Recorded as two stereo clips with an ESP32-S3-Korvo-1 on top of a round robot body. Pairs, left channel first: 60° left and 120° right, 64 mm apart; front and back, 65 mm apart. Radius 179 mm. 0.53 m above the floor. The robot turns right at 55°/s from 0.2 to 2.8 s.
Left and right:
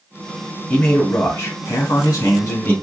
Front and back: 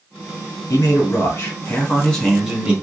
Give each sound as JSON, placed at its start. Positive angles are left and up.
{"t": 0.7, "sound": "a man speaking", "azimuth_deg": -10, "distance_m": 1.6}